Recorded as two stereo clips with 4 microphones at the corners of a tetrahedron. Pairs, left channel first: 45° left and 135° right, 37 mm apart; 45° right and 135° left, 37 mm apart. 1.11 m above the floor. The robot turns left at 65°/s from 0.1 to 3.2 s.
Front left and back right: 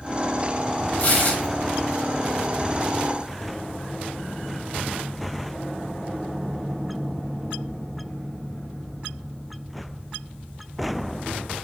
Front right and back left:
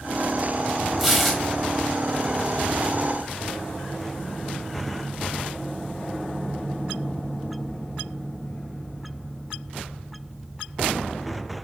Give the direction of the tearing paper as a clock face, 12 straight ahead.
10 o'clock.